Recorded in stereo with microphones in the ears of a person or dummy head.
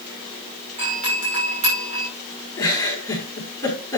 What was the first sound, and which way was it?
A doorbell, 30° right (ahead or behind).